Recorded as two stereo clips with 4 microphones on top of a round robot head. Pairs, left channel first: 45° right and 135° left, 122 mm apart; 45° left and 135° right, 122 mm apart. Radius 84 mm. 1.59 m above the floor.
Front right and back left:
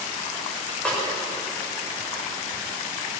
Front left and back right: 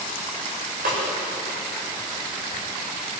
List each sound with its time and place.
0.8 s a snare drum: 125° right, 7.5 m